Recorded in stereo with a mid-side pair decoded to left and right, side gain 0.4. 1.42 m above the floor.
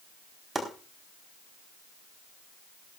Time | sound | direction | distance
0.6 | chopping | 15° right | 4 m